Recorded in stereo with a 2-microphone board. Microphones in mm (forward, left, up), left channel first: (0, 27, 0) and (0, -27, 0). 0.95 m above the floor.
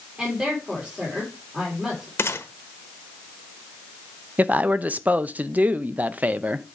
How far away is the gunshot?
About 1.0 m.